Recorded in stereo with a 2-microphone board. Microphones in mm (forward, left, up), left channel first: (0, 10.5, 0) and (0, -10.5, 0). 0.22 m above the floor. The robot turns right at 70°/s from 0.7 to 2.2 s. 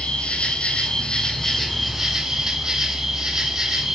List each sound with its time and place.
0.0 s an insect: 110° left, 5 m; by 4.0 s 145° right, 5 m